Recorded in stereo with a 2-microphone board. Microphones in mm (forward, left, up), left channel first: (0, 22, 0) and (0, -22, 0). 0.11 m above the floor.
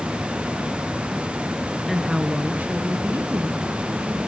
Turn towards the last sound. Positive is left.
turn(degrees=-65)  # may be behind; listen again after turning